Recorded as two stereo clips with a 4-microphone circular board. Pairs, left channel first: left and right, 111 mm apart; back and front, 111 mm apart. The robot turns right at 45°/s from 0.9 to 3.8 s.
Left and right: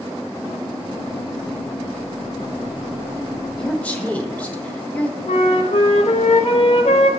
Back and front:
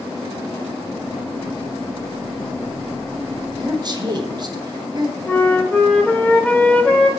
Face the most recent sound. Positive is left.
turn(degrees=105)